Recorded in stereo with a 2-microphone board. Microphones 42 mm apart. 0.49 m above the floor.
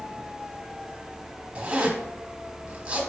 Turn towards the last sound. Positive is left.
turn(degrees=-25)  # may be behind; listen again after turning